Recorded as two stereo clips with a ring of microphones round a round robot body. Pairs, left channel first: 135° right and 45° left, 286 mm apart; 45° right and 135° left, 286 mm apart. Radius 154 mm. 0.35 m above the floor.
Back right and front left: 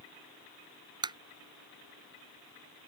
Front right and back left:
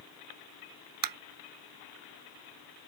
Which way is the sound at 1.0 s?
120° left.